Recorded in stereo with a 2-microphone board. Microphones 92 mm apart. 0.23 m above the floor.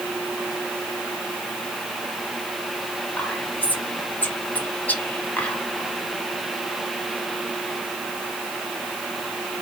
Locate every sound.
3.2 s whispering: 20° left (ahead or behind), 1.4 m